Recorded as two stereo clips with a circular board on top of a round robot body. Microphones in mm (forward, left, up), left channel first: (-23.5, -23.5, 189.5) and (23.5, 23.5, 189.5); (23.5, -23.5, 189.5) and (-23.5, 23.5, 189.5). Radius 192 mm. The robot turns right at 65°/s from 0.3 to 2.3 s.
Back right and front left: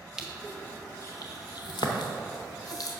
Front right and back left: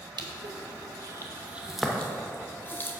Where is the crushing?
125° left, 0.6 m; by 2.9 s 105° right, 0.6 m.